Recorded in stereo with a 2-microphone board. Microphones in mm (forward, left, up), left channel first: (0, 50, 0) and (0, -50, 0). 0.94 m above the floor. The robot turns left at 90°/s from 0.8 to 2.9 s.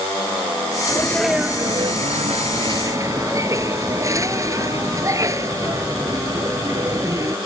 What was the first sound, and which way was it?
A sneeze, 35° left.